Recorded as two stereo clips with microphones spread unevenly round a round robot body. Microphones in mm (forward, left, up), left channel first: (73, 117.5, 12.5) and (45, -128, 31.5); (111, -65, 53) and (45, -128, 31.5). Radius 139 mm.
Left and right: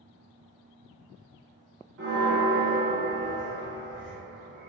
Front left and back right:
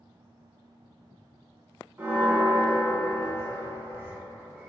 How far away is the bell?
About 1.5 m.